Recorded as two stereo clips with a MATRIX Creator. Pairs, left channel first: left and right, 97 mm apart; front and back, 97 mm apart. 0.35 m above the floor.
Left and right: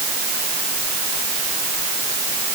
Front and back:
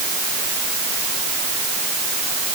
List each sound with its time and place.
Only background noise.